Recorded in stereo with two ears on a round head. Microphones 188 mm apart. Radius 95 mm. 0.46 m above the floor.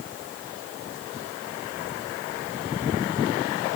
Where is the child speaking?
I don't hear a child speaking.